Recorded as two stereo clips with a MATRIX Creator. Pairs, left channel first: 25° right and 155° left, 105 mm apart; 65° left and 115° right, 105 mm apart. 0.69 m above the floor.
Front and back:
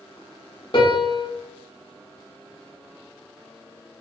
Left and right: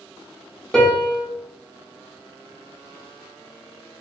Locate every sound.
0.7 s a piano: 15° right, 0.8 m